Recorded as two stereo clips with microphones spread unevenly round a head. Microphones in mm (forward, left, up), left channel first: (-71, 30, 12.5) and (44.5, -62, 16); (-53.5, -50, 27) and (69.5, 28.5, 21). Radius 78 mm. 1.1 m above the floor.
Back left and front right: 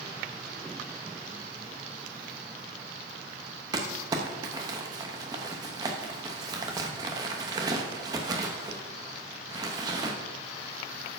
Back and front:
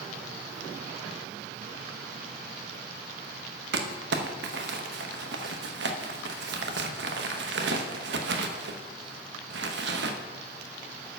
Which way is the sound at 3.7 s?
30° left.